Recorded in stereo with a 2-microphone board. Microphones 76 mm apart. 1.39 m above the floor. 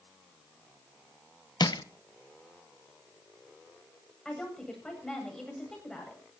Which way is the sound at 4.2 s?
5° left (ahead or behind).